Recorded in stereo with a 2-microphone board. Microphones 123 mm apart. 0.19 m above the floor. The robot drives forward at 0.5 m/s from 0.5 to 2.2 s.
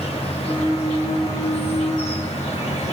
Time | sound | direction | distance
0.0 | an insect | 55° left (ahead or behind) | 4 m